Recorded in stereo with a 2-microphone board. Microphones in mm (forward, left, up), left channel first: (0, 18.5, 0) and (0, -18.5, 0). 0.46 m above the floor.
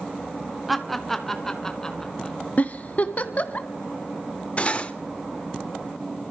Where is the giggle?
45° left (ahead or behind), 0.7 m.